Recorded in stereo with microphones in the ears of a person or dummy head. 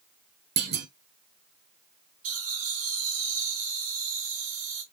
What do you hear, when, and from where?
0.6 s a clunk: 60° right (ahead or behind), 0.7 m
2.2 s laughter: 50° right (ahead or behind), 2 m